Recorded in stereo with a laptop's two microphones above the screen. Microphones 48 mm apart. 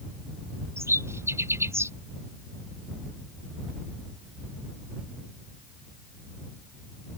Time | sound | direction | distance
0.8 | a bird | 70° right (ahead or behind) | ?